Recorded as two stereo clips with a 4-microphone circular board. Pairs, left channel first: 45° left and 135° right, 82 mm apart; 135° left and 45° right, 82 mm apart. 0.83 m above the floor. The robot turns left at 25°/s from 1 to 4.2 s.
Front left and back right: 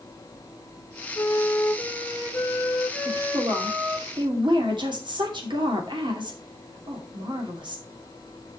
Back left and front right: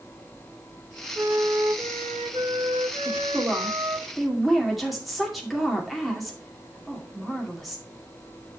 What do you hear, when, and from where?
1.1 s a flute: 10° left, 2 m; by 4.0 s 65° right, 2 m
3.0 s a woman speaking: 105° right, 2.5 m; by 7.8 s 135° right, 2.5 m